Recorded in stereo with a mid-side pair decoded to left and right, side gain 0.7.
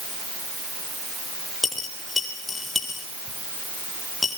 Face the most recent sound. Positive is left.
turn(degrees=15)